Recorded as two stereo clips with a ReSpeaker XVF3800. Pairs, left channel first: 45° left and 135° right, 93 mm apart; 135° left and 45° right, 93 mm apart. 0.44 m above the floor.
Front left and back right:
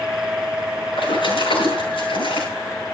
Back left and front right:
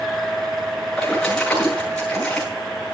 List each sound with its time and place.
1.0 s a splash: 55° left, 7.5 m